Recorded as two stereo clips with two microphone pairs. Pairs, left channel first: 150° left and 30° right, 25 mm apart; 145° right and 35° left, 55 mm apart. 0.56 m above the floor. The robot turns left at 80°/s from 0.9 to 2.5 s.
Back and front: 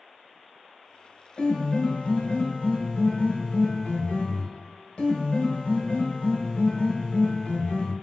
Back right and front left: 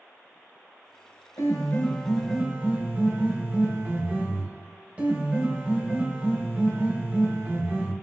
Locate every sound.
1.4 s a piano: 165° right, 1.2 m; by 7.9 s 105° left, 1.2 m